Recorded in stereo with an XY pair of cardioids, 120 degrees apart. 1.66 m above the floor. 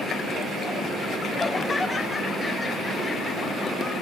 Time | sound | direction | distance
1.4 | laughter | 20° left | 0.7 m